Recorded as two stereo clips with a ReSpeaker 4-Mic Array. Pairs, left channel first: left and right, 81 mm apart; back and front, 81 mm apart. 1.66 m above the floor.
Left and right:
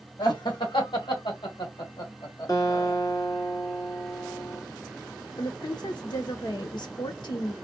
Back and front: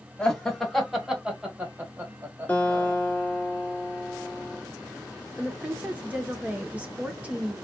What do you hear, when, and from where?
0.2 s laughter: 100° left, 1.8 m; by 3.0 s 50° left, 1.7 m
2.5 s a guitar: 115° left, 1.9 m
5.4 s a woman speaking: 70° left, 1.0 m